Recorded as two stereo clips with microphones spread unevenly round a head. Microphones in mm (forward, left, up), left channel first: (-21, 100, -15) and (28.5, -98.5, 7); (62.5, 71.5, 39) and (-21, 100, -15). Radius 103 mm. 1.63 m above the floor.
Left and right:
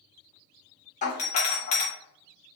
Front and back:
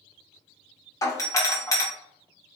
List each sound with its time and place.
1.0 s a doorbell: 55° left, 1.1 m